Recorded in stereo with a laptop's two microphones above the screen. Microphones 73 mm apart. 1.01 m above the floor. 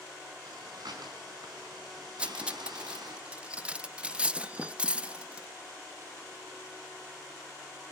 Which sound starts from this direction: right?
Breathing, at 0.5 s.